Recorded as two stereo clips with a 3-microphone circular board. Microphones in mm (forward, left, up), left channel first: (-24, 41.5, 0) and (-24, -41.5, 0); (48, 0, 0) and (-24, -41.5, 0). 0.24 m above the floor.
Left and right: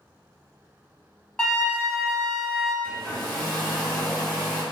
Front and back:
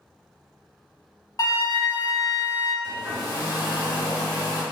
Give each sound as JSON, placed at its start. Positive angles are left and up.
{"t": 1.4, "sound": "a flute", "azimuth_deg": 15, "distance_m": 0.8}
{"t": 2.8, "sound": "a hair dryer", "azimuth_deg": 10, "distance_m": 1.5}